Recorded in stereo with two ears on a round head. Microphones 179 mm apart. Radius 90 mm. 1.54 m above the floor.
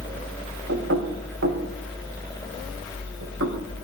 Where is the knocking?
65° right (ahead or behind), 3 m.